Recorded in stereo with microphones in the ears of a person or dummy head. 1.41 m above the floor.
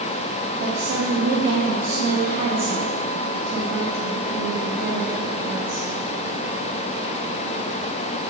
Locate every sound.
0.6 s a woman speaking: 35° right (ahead or behind), 0.8 m